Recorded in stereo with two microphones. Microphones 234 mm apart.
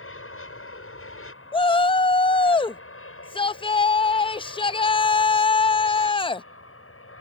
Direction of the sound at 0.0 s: 65° left (ahead or behind).